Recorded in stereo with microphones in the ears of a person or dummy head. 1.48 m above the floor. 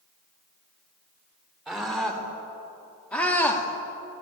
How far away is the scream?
About 4.5 m.